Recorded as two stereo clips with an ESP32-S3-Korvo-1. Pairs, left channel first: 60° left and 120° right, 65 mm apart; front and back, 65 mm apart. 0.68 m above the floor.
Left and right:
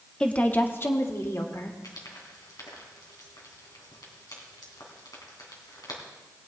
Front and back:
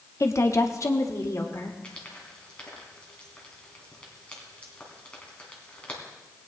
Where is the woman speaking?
10° right, 0.8 m; by 1.7 s 30° left, 1.8 m.